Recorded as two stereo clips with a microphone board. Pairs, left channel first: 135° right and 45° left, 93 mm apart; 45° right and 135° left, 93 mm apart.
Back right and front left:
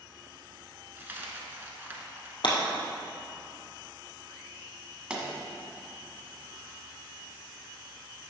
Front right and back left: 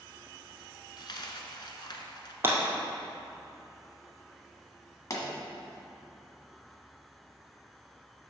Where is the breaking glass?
165° right, 1.9 m.